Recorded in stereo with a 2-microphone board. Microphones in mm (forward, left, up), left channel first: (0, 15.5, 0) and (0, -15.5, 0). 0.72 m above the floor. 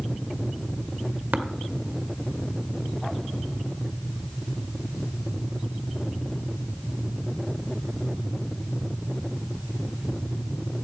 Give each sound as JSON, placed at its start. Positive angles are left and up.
{"t": 1.3, "sound": "tapping", "side_deg": -85, "distance_m": 1.0}